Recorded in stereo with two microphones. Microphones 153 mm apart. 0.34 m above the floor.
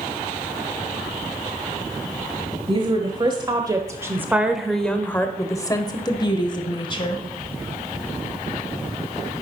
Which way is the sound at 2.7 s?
35° right (ahead or behind).